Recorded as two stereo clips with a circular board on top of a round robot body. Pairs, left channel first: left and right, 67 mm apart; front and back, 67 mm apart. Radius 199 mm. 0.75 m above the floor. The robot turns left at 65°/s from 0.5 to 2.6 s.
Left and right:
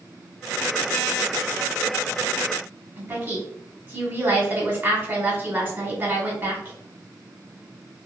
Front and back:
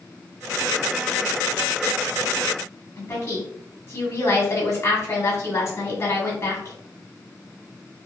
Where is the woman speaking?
40° right, 1.8 m.